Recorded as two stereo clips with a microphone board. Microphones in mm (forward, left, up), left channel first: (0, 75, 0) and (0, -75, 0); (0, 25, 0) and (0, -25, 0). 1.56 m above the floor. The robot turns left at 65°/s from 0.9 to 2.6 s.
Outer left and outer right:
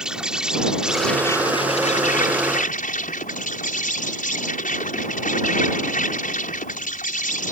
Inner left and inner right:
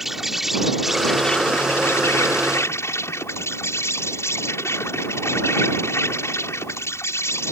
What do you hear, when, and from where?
0.0 s an insect: 175° right; by 7.5 s 75° left